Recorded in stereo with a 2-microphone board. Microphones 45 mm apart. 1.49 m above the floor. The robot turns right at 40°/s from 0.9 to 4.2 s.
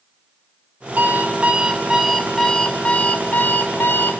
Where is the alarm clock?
50° right, 1.8 m; by 4.2 s 80° left, 1.8 m.